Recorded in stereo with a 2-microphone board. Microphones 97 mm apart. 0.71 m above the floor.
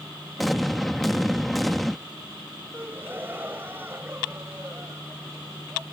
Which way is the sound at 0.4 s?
Centre (ahead or behind).